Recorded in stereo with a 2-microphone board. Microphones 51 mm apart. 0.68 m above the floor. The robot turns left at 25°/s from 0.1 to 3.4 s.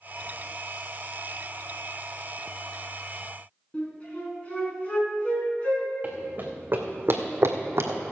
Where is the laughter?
No laughter in this recording.